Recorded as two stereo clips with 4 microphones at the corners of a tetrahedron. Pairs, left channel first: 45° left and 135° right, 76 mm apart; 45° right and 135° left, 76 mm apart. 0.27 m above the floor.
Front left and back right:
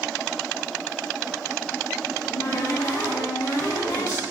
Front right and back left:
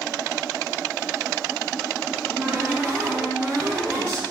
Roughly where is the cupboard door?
Left.